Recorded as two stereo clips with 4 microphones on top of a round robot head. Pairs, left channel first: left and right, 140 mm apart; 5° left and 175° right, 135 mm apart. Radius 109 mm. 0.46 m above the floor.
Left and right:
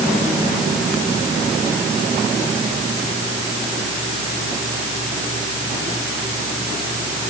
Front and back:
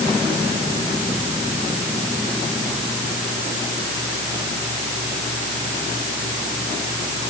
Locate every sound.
Only background noise.